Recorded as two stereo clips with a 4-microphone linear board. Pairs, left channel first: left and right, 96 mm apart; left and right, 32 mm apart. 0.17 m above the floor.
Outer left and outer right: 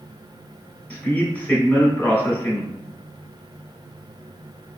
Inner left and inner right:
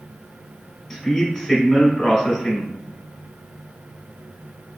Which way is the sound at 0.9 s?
15° left (ahead or behind).